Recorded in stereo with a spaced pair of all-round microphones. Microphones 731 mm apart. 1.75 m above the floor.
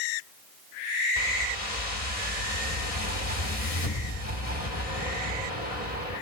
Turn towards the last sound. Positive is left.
turn(degrees=50)  # may be behind; listen again after turning